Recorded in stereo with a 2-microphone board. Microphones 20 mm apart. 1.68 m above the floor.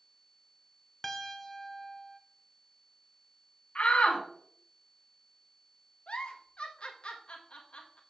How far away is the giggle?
About 1.3 m.